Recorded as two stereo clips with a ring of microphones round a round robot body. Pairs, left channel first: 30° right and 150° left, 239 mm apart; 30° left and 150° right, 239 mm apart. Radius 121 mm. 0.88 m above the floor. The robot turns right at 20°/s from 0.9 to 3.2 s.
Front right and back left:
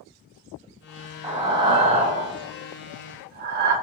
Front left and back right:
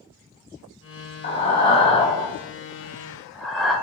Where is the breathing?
80° left, 0.7 m; by 3.8 s 120° left, 0.7 m.